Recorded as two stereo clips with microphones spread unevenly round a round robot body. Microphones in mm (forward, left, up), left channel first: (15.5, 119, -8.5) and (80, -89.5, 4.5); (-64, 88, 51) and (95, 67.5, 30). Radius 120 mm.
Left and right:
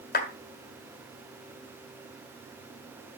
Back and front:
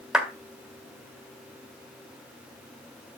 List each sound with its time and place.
0.1 s a clap: 75° left, 1.8 m